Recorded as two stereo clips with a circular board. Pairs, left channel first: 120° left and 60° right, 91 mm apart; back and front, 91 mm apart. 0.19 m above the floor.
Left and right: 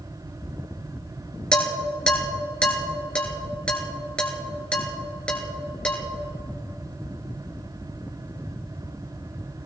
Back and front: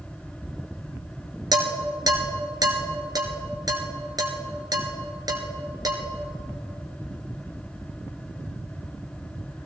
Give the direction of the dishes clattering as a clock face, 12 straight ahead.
11 o'clock.